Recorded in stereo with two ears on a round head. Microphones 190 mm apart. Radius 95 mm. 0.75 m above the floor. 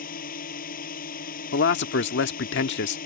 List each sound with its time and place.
0.0 s a drone: 45° left (ahead or behind)
1.5 s a man speaking: 60° left (ahead or behind)